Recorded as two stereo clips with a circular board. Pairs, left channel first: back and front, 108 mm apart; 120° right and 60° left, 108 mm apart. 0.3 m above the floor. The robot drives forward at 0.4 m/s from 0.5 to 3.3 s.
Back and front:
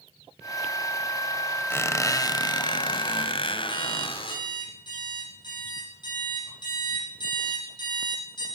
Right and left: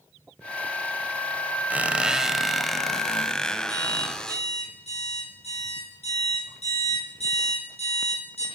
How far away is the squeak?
About 0.7 m.